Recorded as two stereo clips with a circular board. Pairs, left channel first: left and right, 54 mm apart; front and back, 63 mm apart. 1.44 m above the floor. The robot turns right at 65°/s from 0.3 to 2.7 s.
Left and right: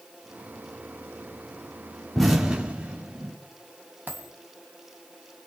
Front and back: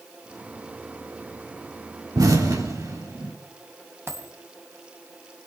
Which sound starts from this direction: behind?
An explosion, at 2.1 s.